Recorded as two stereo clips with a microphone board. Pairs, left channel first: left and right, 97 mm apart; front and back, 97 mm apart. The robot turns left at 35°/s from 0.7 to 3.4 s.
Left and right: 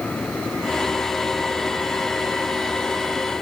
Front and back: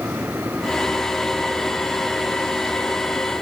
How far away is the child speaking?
No child speaking in this recording.